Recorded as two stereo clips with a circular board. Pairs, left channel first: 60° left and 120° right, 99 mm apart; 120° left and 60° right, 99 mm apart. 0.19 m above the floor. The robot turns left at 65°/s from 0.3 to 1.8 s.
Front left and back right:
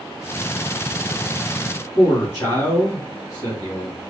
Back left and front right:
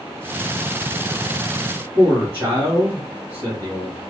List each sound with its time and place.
1.9 s a man speaking: straight ahead, 2 m